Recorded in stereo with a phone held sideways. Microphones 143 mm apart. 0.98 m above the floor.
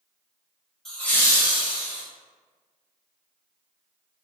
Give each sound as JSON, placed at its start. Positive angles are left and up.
{"t": 0.8, "sound": "laughter", "side_deg": 5, "distance_m": 1.1}